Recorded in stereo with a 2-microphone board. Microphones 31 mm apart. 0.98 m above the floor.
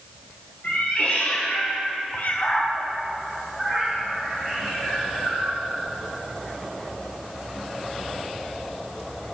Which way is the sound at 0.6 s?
65° left (ahead or behind).